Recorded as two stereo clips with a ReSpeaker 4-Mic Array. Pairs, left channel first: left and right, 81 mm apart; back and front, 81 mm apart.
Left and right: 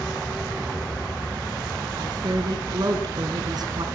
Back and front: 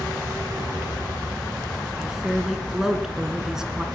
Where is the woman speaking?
80° right, 2.0 m.